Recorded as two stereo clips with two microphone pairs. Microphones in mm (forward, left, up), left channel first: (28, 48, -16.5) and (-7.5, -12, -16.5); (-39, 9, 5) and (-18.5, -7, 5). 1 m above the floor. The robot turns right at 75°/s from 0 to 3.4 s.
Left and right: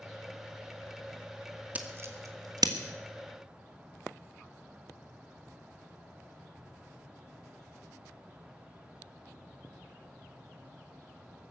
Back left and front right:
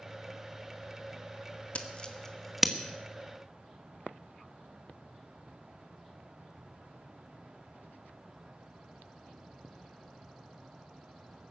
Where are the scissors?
170° left, 1.5 m; by 2.7 s 115° right, 1.5 m.